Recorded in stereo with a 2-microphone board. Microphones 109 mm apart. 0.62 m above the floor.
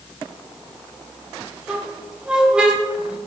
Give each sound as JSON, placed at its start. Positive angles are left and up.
{"t": 1.7, "sound": "a squeak", "side_deg": -10, "distance_m": 0.7}